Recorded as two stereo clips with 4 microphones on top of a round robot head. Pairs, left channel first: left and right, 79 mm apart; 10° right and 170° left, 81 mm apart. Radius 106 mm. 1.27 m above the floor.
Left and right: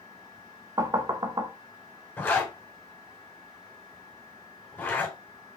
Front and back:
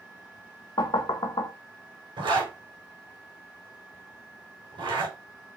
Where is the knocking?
45° right, 1.2 m.